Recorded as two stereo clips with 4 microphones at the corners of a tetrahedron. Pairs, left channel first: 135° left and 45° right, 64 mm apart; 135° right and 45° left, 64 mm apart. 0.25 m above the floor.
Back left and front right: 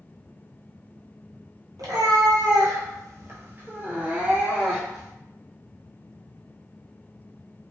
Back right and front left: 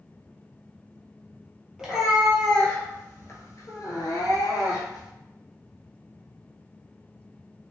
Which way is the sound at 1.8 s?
35° right.